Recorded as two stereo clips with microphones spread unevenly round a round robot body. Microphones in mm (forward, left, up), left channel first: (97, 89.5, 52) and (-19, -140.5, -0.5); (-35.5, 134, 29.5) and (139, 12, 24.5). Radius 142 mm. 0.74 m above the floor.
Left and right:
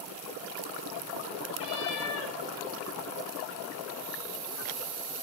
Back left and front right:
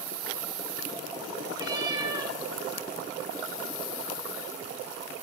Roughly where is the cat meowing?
Ahead left.